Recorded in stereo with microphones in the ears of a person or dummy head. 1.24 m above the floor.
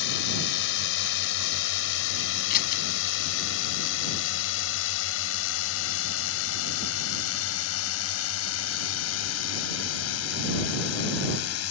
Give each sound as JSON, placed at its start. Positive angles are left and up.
{"t": 0.0, "sound": "a drone", "side_deg": 65}
{"t": 2.5, "sound": "scissors", "side_deg": 50}